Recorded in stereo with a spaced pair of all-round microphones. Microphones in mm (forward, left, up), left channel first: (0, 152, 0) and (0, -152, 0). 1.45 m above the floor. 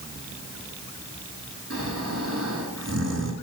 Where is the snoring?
55° right (ahead or behind), 5.5 m.